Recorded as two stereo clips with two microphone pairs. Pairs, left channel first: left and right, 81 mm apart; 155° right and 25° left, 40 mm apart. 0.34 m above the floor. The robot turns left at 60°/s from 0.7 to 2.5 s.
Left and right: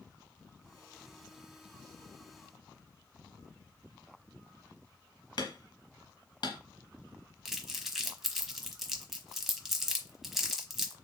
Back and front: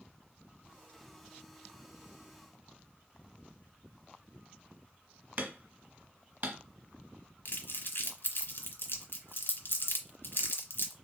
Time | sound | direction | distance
5.4 | hammering | 65° left | 1.3 m
7.5 | crumpling | 175° right | 1.0 m